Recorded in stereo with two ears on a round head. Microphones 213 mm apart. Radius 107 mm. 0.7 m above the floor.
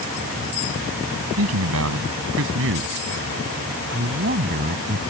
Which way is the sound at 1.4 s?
70° right (ahead or behind).